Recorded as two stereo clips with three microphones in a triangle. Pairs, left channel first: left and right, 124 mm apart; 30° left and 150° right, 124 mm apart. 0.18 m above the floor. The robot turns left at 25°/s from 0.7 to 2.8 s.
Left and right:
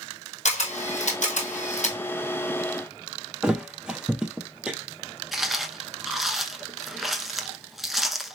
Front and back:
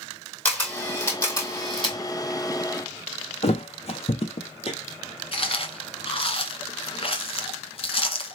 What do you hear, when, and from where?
0.5 s a camera shutter: 105° left, 1.7 m; by 2.0 s 75° left, 1.7 m
3.4 s a thud: 5° right, 0.8 m
5.3 s chewing: straight ahead, 0.8 m